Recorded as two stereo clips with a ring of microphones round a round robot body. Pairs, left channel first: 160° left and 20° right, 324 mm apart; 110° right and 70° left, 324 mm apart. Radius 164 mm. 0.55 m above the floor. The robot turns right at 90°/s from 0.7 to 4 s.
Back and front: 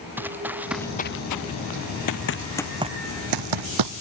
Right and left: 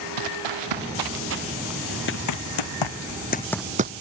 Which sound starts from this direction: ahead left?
Running footsteps, at 0.2 s.